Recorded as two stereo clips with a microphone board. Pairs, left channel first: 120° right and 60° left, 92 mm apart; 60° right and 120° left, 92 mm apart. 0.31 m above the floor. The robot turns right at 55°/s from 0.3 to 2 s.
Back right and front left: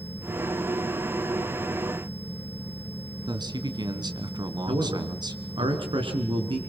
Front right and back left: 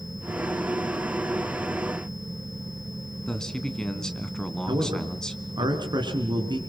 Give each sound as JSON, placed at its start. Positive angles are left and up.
{"t": 3.3, "sound": "a man speaking", "azimuth_deg": 25, "distance_m": 2.5}
{"t": 4.7, "sound": "a man speaking", "azimuth_deg": 85, "distance_m": 4.0}